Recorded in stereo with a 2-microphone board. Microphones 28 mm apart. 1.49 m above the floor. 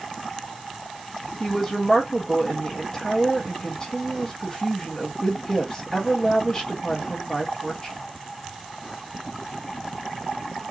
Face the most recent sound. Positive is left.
turn(degrees=30)  # may be behind; listen again after turning